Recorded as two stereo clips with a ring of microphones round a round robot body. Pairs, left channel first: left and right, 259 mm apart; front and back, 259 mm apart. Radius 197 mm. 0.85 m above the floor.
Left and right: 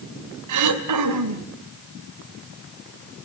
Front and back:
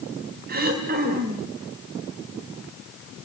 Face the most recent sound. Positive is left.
turn(degrees=-115)